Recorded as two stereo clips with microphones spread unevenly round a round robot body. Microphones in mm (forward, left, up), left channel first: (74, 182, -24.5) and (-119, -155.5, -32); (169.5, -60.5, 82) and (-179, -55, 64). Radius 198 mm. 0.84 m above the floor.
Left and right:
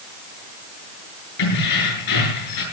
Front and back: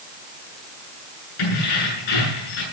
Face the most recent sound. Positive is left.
turn(degrees=25)